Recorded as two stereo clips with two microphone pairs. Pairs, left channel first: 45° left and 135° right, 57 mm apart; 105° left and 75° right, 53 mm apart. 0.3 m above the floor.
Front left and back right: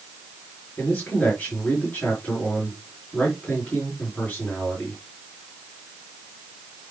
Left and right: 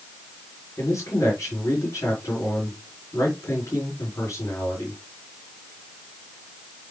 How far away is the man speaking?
About 4.5 m.